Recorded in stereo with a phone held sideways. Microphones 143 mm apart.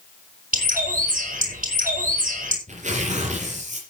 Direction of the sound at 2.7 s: 60° right (ahead or behind).